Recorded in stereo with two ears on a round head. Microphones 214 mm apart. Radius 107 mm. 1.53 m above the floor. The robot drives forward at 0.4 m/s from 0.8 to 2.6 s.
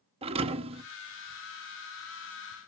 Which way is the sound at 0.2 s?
25° right (ahead or behind).